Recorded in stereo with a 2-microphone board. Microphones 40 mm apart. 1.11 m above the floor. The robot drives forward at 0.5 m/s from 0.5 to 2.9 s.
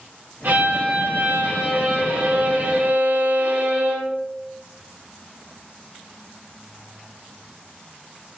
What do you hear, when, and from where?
0.4 s a violin: 60° right (ahead or behind), 1.9 m; by 4.2 s 40° right (ahead or behind), 2.5 m